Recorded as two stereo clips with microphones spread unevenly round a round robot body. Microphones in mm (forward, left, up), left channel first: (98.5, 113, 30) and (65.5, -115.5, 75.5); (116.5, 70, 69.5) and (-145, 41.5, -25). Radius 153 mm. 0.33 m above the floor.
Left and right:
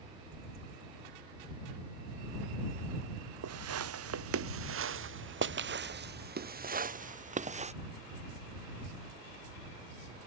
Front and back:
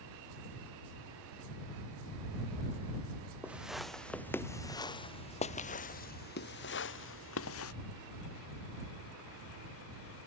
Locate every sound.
3.4 s footsteps: 85° right; by 7.7 s 35° right